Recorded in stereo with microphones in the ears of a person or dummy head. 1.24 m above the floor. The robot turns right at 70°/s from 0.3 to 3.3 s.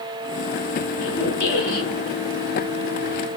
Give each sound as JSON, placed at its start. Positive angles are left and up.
{"t": 0.9, "sound": "a squeak", "azimuth_deg": 90, "distance_m": 1.7}